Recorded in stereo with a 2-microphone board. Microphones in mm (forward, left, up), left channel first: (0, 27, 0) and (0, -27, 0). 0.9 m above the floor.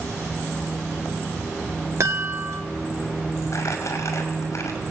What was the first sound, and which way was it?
A chime, 55° right (ahead or behind).